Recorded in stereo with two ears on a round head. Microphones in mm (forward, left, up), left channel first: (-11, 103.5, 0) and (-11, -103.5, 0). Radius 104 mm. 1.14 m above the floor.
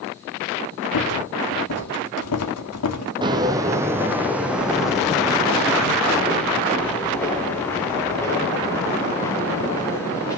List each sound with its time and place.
0.9 s a rattle: 75° left (ahead or behind), 1.9 m
3.2 s footsteps: 20° right (ahead or behind), 1.8 m; by 10.4 s 15° left (ahead or behind), 6.5 m